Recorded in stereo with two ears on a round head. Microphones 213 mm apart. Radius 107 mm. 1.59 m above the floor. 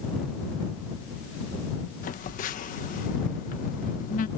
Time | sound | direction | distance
2.0 | a phone buzzing | 35° left (ahead or behind) | ?